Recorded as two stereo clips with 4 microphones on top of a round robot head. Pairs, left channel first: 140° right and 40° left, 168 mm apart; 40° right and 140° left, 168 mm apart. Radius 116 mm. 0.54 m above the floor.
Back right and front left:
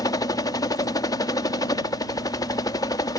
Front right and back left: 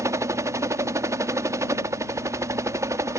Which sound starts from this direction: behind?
A helicopter, at 0.0 s.